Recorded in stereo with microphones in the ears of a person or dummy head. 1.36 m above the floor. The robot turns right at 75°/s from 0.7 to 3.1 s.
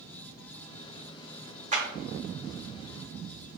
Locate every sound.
1.7 s a clap: 35° right (ahead or behind), 0.6 m; by 1.8 s 40° right (ahead or behind), 0.6 m